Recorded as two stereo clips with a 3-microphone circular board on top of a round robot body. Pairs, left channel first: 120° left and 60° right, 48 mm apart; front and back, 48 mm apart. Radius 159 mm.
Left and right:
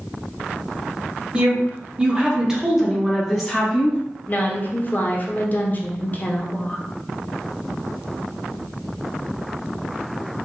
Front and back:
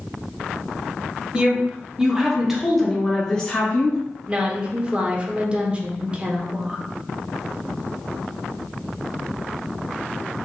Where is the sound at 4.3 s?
130° left, 1.0 m.